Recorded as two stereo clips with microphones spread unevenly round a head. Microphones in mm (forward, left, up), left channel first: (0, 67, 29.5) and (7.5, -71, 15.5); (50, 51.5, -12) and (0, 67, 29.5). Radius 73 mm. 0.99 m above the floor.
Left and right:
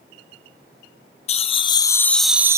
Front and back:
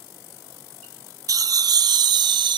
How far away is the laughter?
About 1.0 m.